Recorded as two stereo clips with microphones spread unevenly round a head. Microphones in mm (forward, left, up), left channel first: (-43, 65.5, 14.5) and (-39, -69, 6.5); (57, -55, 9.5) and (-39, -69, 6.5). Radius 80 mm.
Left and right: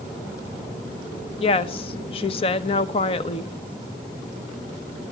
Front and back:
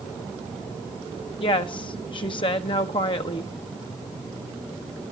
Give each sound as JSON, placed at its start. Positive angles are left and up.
{"t": 1.4, "sound": "a woman speaking", "azimuth_deg": 40, "distance_m": 0.9}